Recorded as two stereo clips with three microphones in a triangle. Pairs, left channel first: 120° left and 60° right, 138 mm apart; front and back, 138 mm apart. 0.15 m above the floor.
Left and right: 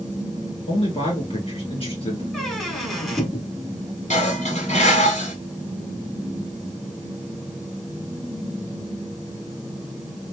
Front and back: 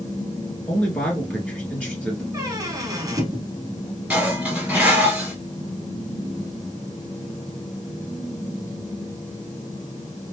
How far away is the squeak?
About 1.0 m.